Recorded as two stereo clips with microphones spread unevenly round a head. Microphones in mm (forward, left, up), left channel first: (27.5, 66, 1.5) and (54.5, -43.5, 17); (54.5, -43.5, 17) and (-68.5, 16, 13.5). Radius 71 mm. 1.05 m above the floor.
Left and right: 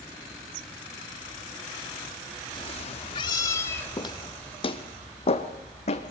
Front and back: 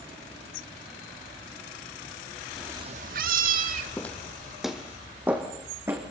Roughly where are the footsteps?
Ahead left.